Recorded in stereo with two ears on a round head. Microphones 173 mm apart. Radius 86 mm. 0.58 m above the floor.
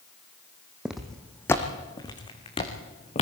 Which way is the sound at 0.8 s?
5° right (ahead or behind).